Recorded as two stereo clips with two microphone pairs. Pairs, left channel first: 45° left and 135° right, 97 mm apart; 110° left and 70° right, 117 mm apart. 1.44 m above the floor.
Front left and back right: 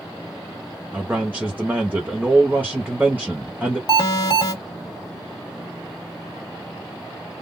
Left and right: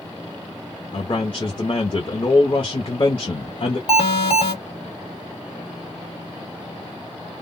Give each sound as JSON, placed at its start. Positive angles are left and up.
{"t": 0.9, "sound": "a man speaking", "azimuth_deg": 155, "distance_m": 0.6}
{"t": 3.9, "sound": "an alarm", "azimuth_deg": 85, "distance_m": 1.3}